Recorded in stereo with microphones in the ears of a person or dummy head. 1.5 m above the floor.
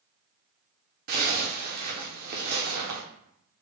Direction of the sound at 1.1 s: 45° right (ahead or behind).